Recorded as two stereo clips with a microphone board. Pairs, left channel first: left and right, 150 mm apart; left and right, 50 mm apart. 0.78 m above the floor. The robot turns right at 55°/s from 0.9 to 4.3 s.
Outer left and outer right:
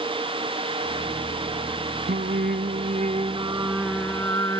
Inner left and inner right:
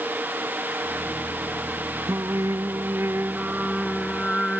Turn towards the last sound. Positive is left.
turn(degrees=20)